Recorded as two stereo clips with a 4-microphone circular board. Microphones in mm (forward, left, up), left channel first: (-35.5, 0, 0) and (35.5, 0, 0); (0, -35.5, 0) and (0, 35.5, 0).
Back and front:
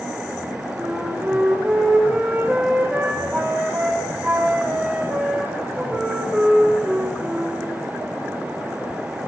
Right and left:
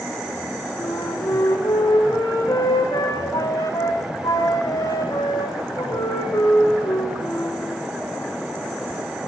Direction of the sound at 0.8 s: 80° right.